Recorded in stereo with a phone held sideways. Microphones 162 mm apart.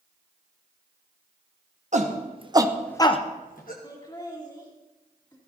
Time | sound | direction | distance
1.9 | a shout | 50° right (ahead or behind) | 1.5 m
3.8 | laughter | 25° left (ahead or behind) | 2 m